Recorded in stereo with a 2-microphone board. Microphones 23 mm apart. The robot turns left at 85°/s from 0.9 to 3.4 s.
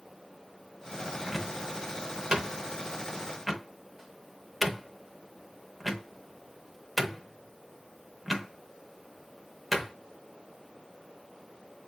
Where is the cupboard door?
5° left (ahead or behind), 0.6 m; by 9.9 s 5° right (ahead or behind), 0.6 m.